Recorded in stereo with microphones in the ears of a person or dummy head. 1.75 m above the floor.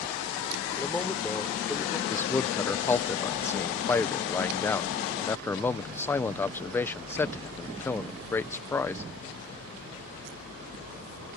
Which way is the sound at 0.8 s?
10° left (ahead or behind).